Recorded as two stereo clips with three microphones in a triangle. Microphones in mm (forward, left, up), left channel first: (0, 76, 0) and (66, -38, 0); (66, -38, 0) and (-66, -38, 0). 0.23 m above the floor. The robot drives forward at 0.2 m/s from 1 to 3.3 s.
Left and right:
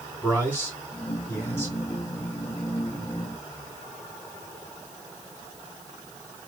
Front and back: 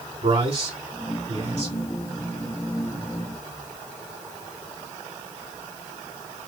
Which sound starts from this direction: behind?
A man speaking, at 0.2 s.